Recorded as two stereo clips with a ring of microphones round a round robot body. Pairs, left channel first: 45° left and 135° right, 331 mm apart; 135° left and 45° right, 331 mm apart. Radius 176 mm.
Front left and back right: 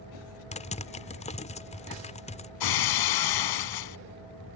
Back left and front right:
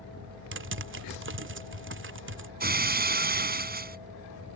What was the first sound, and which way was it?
Typing on a keyboard, 15° right.